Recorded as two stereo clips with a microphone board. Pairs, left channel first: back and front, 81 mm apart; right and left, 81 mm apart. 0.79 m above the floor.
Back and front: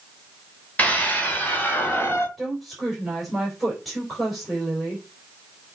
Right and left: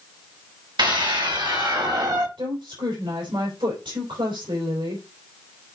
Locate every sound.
0.8 s a scream: 110° left, 3.5 m; by 2.3 s 125° left, 2 m
2.4 s a woman speaking: 90° left, 3.5 m